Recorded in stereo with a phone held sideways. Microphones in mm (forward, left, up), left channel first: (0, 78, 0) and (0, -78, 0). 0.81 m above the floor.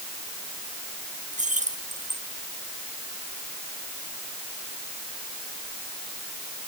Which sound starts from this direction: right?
Keys jangling, at 1.3 s.